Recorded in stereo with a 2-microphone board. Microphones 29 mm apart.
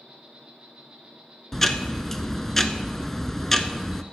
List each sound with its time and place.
0.0 s an insect: 45° right (ahead or behind), 3 m
1.5 s ticking: 10° left (ahead or behind), 0.6 m